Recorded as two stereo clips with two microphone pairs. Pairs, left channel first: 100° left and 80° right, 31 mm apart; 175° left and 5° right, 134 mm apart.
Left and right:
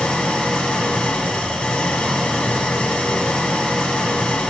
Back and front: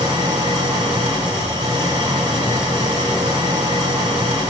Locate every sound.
0.0 s an engine running: 55° left, 2 m